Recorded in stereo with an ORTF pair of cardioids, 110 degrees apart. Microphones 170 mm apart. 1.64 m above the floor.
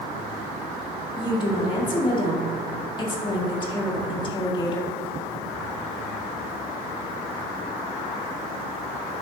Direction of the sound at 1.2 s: 25° left.